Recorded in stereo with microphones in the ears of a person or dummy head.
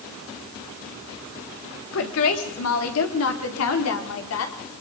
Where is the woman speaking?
65° left (ahead or behind), 3 m; by 4.5 s 80° left, 4 m.